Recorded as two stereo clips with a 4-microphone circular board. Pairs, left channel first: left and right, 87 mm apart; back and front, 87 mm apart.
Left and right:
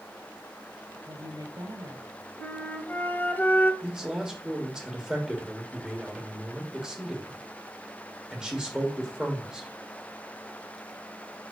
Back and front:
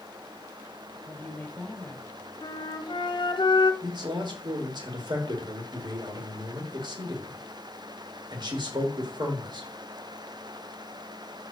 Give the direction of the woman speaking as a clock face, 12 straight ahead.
4 o'clock.